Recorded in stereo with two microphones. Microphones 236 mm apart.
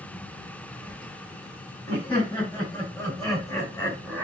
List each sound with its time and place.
1.9 s laughter: 20° left (ahead or behind), 6.5 m; by 4.2 s 10° left (ahead or behind), 3 m